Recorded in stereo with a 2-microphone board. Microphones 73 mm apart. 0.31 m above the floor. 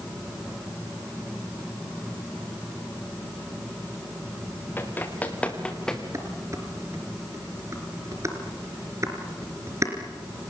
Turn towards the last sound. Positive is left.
turn(degrees=-40)  # may be behind; listen again after turning